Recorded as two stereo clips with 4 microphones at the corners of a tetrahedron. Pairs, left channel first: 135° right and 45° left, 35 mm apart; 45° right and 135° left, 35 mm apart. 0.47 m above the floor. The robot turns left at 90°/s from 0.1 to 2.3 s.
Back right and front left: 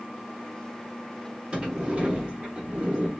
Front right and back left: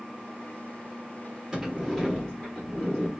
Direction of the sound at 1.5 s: 75° left.